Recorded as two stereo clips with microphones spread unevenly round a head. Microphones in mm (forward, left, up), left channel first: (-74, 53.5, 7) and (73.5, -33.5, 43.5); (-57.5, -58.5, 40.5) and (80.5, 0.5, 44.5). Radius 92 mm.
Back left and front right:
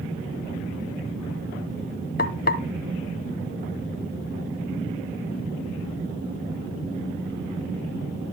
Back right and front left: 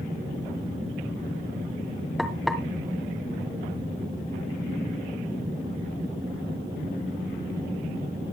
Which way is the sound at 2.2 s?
110° left.